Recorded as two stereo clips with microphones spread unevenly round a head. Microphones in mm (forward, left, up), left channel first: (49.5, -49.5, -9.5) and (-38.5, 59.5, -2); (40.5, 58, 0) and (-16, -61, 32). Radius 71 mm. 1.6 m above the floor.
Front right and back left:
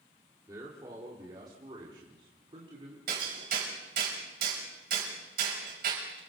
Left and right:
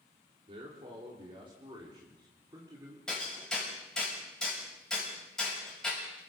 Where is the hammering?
150° left, 7 m.